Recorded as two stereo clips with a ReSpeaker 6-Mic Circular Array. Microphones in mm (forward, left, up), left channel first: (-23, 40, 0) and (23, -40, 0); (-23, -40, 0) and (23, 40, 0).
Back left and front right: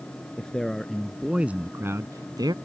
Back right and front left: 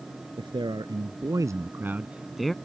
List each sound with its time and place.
0.4 s a man speaking: 40° left; by 2.5 s 35° right